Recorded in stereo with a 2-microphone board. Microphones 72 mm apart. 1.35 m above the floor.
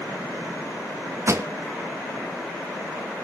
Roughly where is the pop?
Right.